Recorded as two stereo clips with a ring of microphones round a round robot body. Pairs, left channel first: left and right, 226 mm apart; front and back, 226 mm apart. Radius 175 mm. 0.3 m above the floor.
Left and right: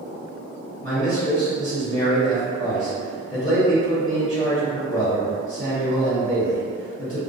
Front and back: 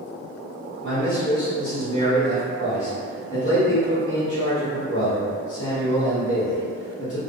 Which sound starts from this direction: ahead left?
A man speaking, at 0.8 s.